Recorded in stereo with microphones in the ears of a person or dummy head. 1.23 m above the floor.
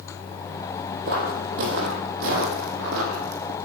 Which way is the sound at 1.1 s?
55° right (ahead or behind).